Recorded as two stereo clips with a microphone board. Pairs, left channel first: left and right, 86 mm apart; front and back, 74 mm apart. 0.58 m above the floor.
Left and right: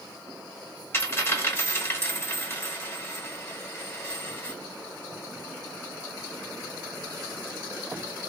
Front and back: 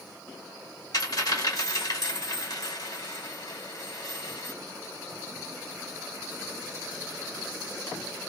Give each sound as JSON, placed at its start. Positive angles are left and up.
{"t": 0.9, "sound": "a dropped coin", "azimuth_deg": 30, "distance_m": 1.4}